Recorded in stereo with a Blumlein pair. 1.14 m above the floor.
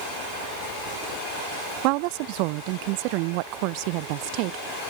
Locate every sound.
1.8 s a woman speaking: 45° right